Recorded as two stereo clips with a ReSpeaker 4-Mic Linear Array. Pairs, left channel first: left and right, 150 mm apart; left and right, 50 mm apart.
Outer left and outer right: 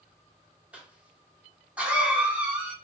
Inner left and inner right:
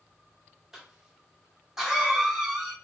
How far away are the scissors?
No scissors in this recording.